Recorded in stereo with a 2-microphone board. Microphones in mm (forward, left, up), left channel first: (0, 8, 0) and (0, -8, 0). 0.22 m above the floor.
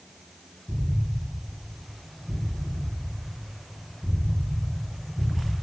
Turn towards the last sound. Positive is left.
turn(degrees=20)  # may be behind; listen again after turning